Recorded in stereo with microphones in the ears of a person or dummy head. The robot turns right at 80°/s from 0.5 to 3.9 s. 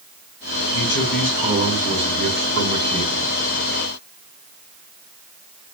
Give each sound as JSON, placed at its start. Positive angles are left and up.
{"t": 0.7, "sound": "a man speaking", "azimuth_deg": 145, "distance_m": 5.5}